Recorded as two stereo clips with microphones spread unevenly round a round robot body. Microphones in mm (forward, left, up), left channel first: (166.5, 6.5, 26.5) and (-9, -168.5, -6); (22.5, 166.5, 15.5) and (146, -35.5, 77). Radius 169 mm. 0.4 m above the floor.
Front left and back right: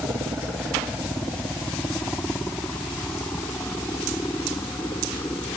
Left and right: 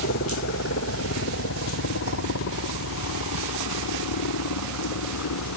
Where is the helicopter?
140° left; by 5.6 s 130° left.